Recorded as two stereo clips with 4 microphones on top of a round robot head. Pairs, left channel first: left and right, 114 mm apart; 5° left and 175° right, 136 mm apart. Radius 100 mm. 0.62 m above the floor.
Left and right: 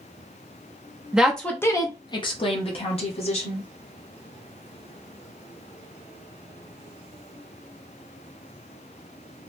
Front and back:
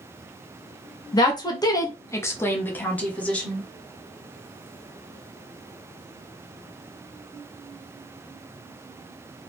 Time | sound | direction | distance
1.1 | a woman speaking | 15° right | 0.6 m